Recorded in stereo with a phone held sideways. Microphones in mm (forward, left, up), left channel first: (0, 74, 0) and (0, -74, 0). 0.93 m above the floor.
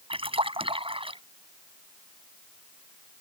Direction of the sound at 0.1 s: 40° right (ahead or behind).